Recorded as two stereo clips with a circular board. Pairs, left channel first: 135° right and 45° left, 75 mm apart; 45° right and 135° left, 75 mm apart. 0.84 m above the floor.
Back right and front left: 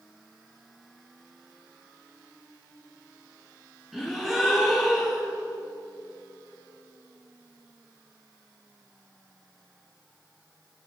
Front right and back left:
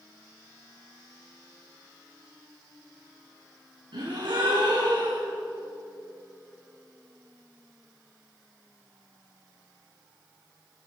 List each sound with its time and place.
3.9 s a gasp: 130° left, 4.5 m